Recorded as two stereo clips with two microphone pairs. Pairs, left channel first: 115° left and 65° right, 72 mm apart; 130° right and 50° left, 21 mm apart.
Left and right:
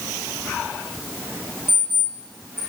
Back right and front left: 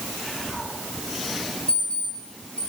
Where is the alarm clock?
130° right, 5 m.